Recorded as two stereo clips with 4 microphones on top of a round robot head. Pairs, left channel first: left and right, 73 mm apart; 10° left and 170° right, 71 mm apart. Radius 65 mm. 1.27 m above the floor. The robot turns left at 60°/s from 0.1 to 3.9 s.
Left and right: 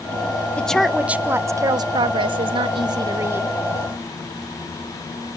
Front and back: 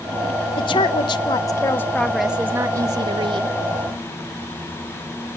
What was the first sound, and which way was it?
A woman speaking, 15° left.